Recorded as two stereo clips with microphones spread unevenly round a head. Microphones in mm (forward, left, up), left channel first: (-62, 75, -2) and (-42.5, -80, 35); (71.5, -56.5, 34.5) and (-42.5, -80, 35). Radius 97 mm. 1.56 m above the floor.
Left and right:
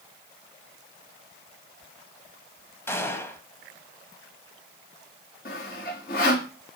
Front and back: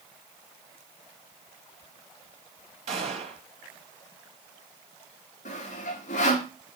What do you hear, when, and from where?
2.9 s a gunshot: straight behind, 1.9 m
5.5 s sawing: 50° left, 3 m